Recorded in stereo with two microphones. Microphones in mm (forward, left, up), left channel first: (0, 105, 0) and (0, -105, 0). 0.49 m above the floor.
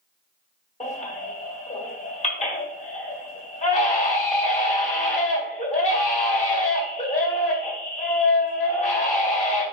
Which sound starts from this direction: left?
A baby crying, at 0.8 s.